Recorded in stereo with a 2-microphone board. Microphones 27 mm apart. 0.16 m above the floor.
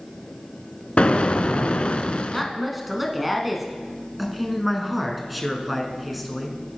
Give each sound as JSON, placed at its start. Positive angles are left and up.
{"t": 1.0, "sound": "an explosion", "side_deg": 50, "distance_m": 0.6}
{"t": 2.3, "sound": "a woman speaking", "side_deg": -5, "distance_m": 1.3}
{"t": 4.2, "sound": "a man speaking", "side_deg": 0, "distance_m": 1.4}